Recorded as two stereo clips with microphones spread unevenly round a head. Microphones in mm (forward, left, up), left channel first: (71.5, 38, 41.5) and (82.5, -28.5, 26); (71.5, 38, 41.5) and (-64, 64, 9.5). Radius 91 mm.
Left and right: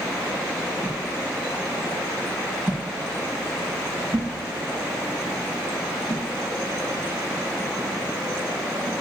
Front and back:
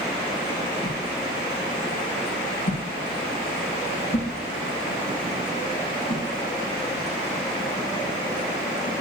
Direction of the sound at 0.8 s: 10° right.